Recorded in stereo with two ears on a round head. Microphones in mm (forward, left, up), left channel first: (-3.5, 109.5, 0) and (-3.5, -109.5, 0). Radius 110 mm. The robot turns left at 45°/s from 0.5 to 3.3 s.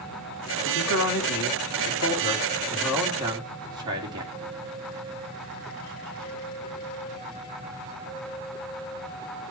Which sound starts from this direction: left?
A man speaking, at 0.7 s.